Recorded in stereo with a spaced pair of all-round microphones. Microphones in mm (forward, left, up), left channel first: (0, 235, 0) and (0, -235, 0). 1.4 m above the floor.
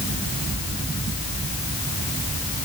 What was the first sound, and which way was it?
Only background noise.